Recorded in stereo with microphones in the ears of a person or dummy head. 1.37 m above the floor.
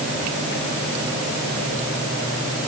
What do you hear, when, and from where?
Only background noise.